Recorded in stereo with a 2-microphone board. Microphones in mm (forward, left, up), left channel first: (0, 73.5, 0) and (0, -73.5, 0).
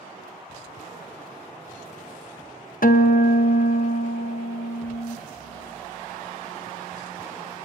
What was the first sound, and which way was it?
A guitar, 65° left (ahead or behind).